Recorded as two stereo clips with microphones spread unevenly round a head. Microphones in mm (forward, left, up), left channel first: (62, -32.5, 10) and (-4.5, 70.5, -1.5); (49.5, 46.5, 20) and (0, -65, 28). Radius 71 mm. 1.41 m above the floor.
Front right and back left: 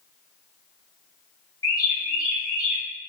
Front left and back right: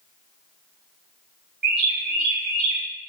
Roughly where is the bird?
Behind right.